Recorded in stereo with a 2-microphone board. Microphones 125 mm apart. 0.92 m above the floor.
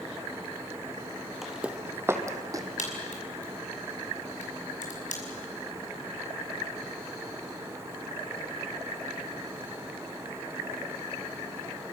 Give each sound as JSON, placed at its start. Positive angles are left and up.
{"t": 1.4, "sound": "footsteps", "side_deg": 0, "distance_m": 1.5}
{"t": 2.8, "sound": "a crack", "side_deg": 80, "distance_m": 5.5}